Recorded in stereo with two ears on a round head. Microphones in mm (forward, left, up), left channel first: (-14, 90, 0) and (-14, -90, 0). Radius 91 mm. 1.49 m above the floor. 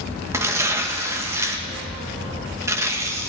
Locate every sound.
0.3 s tearing paper: 15° right (ahead or behind), 1.0 m